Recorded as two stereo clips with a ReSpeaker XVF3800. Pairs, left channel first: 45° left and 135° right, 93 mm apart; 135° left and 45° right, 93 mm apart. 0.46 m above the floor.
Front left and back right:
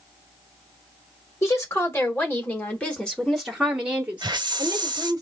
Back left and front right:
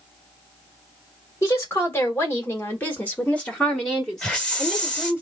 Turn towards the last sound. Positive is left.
turn(degrees=-150)